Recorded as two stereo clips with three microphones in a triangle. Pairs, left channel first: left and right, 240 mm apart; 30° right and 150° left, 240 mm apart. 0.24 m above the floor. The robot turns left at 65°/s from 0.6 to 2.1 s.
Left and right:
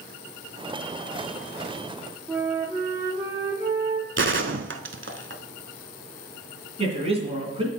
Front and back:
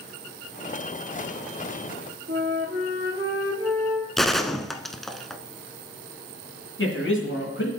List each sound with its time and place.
2.3 s a flute: 170° right, 4 m
4.2 s a gunshot: 120° right, 0.6 m
6.8 s a man speaking: 30° right, 2.5 m